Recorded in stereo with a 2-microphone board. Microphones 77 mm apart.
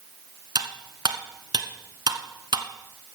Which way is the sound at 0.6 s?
65° right (ahead or behind).